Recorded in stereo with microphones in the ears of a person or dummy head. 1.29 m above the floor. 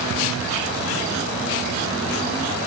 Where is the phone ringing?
No phone ringing in this recording.